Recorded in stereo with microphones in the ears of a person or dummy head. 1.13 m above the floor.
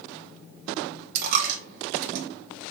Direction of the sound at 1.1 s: 50° right (ahead or behind).